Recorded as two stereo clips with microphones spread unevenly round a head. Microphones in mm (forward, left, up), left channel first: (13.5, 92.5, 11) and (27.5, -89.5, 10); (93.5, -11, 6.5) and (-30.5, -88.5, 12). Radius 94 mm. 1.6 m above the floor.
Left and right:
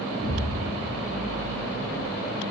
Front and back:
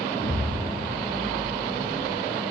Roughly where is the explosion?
Ahead right.